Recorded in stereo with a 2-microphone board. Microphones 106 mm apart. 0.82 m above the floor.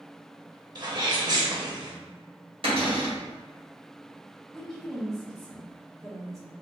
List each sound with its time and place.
0.8 s a sneeze: 45° right (ahead or behind), 0.7 m
2.6 s a cupboard door: 60° right (ahead or behind), 1.5 m
4.5 s a woman speaking: centre (ahead or behind), 1.2 m